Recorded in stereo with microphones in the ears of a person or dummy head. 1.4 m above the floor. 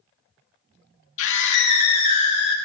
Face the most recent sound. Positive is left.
turn(degrees=35)  # may be behind; listen again after turning